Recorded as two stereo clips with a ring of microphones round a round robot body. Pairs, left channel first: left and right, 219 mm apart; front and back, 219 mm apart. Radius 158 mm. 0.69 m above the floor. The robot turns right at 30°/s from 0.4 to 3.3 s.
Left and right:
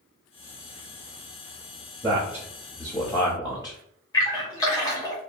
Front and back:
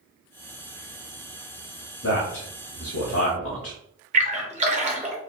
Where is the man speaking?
20° right, 0.8 m; by 3.8 s 20° left, 0.8 m.